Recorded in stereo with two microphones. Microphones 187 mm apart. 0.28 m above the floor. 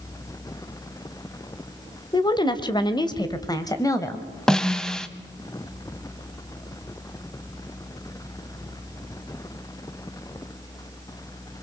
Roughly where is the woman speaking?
Left.